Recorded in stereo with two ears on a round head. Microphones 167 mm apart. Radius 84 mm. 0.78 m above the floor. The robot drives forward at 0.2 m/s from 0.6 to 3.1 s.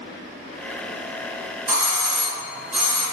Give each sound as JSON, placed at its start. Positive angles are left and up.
{"t": 1.7, "sound": "a doorbell", "side_deg": -15, "distance_m": 1.1}